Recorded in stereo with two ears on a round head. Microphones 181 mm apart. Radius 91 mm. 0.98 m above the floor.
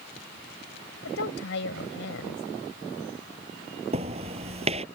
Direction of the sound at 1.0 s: 70° left (ahead or behind).